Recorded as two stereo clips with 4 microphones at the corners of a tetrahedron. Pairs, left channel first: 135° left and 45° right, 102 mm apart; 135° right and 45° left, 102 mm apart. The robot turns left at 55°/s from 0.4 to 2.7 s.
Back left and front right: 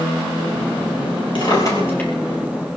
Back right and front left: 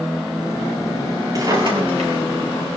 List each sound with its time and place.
1.4 s a drawer: 100° left, 6.5 m; by 2.8 s 25° left, 6.5 m